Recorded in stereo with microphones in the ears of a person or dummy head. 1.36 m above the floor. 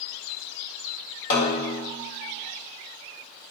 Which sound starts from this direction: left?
A snare drum, at 1.3 s.